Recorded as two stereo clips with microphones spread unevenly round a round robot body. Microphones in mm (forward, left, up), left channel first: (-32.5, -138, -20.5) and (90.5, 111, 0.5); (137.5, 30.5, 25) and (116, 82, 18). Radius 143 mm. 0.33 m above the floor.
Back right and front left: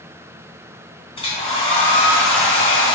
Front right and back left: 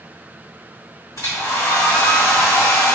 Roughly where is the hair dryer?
Ahead right.